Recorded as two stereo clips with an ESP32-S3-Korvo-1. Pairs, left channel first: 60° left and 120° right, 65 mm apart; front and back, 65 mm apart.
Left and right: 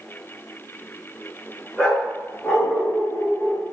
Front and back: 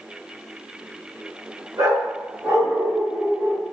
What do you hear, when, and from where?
1.8 s a dog barking: 145° left, 6.5 m; by 3.6 s 120° left, 6 m